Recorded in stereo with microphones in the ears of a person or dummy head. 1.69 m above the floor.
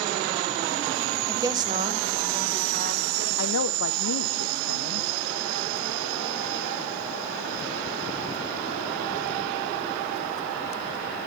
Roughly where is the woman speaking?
Centre.